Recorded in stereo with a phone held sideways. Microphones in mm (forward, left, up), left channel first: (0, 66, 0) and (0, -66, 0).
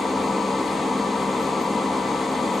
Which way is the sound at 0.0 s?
Centre (ahead or behind).